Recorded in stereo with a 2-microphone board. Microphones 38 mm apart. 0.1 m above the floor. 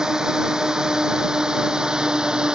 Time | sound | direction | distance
0.0 | a drone | 20° right (ahead or behind) | ?